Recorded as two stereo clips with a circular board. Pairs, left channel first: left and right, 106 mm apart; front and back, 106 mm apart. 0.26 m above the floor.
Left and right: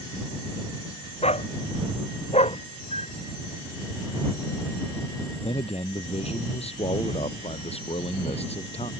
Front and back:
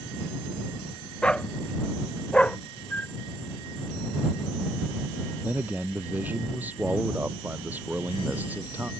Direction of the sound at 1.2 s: 80° left.